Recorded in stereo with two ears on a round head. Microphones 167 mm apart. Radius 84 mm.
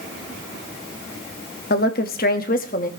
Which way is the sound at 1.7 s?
55° left (ahead or behind).